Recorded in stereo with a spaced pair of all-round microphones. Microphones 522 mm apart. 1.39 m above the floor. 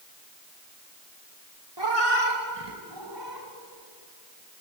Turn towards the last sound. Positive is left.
turn(degrees=-50)  # may be behind; listen again after turning